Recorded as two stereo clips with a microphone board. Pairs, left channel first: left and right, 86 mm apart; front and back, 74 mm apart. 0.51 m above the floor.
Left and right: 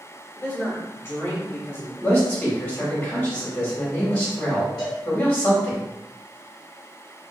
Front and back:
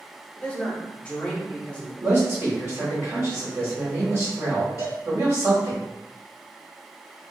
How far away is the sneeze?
I don't hear a sneeze.